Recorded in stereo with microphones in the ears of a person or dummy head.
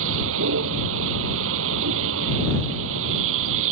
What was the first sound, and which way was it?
A vehicle, 75° right (ahead or behind).